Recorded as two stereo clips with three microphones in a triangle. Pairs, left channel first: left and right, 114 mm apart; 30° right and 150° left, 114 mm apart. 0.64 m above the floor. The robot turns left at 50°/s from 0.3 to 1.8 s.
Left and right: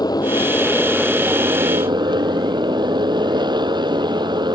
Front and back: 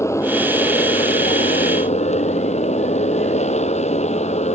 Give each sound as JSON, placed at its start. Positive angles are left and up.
{"t": 0.0, "sound": "a motorcycle", "azimuth_deg": 35}